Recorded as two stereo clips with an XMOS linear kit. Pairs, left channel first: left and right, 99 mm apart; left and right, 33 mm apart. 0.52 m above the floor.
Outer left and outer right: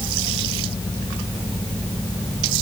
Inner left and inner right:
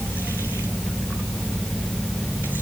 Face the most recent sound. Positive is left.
No sound to turn to.